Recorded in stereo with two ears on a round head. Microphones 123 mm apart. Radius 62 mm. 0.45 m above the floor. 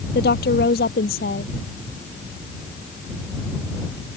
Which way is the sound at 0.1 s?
75° left (ahead or behind).